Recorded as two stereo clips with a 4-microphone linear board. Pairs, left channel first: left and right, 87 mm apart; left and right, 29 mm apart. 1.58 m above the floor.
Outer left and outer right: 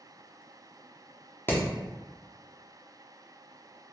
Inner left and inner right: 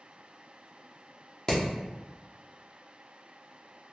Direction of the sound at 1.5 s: 25° left (ahead or behind).